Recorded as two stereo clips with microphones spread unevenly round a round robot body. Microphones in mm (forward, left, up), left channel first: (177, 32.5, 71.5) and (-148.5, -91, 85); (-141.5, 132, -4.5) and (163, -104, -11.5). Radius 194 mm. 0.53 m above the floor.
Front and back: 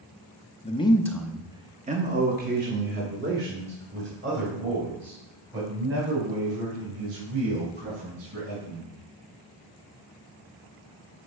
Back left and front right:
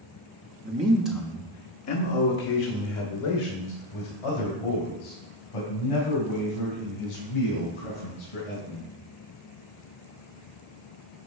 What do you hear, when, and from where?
0.6 s a man speaking: 15° right, 0.9 m; by 8.9 s 150° left, 6 m